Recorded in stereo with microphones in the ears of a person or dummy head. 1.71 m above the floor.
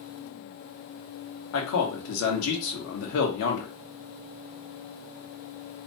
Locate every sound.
1.5 s a man speaking: 80° left, 1.0 m